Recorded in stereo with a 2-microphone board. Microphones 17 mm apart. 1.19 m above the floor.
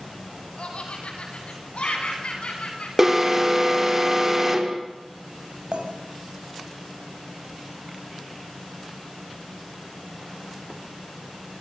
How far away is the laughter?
About 9.5 m.